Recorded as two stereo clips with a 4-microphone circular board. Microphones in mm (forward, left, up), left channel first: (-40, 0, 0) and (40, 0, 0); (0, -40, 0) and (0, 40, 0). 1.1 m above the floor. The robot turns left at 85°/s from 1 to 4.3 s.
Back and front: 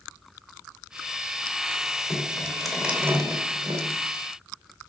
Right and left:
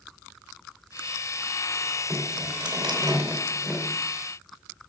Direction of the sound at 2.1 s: 135° left.